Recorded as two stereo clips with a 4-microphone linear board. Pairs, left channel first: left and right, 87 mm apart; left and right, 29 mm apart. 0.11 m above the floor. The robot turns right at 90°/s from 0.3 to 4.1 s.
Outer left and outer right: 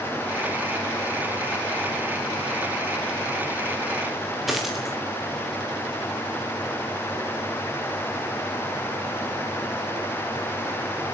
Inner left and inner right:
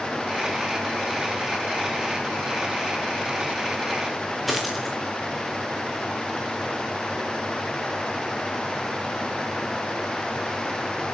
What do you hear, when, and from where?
4.5 s a dropped coin: centre (ahead or behind), 3.5 m